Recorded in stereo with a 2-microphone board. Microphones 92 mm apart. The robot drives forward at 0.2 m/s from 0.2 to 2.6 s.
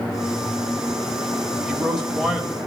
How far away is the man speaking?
About 0.9 m.